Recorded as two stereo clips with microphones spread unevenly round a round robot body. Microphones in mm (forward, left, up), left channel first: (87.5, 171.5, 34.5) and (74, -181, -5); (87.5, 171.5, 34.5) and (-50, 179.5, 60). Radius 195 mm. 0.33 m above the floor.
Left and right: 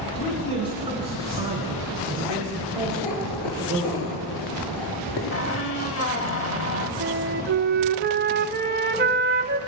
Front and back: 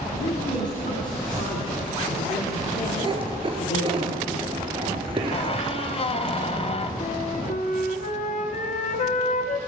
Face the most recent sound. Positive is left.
turn(degrees=-30)